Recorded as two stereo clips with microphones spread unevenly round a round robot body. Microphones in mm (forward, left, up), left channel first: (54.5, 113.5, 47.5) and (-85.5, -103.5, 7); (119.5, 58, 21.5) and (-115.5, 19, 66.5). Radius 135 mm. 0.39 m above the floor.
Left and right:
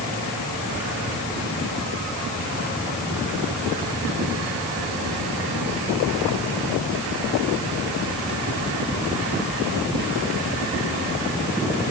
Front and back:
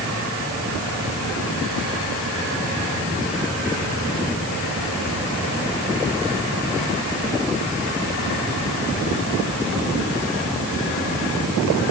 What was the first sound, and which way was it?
Only background noise.